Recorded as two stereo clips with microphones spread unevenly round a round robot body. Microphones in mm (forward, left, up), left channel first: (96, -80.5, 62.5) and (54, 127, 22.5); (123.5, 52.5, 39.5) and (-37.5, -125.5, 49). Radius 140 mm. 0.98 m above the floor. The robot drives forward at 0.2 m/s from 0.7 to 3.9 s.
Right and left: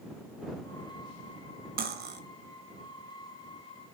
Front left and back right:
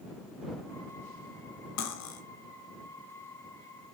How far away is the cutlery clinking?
About 0.5 m.